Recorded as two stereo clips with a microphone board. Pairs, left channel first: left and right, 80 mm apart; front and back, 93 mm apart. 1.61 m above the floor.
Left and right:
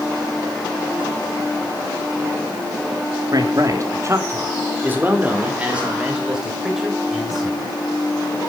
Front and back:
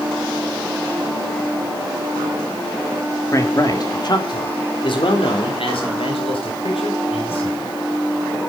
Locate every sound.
3.3 s a man speaking: 55° right, 3 m; by 7.8 s 5° right, 8 m